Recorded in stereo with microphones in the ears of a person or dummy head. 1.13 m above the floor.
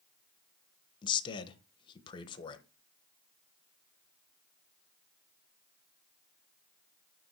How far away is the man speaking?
About 0.9 m.